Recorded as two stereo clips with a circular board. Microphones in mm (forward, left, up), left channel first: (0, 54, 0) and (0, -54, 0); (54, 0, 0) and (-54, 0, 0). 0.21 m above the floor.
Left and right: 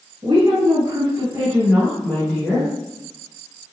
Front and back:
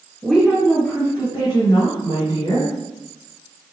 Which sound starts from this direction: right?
A woman speaking, at 0.2 s.